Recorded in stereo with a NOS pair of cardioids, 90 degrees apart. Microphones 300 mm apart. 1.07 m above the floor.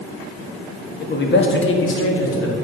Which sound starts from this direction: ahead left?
A man speaking, at 1.0 s.